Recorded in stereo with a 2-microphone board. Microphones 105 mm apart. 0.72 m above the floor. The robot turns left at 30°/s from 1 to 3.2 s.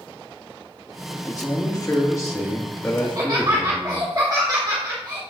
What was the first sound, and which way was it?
A man speaking, 90° left.